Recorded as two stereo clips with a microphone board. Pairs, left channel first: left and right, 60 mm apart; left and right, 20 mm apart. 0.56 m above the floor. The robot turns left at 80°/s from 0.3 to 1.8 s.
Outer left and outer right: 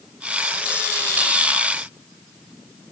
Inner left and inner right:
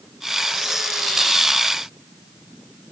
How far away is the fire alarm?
I don't hear a fire alarm.